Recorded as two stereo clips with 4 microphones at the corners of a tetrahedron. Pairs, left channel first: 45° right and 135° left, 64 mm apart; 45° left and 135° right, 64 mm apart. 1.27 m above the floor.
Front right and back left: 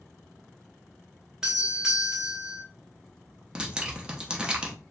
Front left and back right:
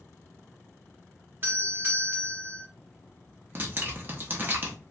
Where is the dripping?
160° right, 0.7 m.